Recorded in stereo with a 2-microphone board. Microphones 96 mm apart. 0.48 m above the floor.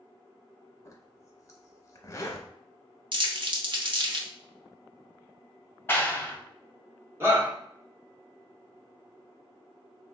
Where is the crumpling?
60° right (ahead or behind), 0.7 m.